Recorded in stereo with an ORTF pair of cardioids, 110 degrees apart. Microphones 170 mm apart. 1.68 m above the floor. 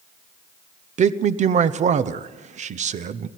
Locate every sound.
1.0 s a man speaking: 45° right, 1.0 m